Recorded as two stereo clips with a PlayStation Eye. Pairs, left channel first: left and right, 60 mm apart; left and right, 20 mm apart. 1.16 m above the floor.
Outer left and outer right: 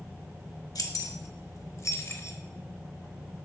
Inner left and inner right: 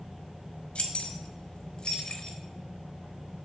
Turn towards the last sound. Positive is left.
turn(degrees=40)  # may be behind; listen again after turning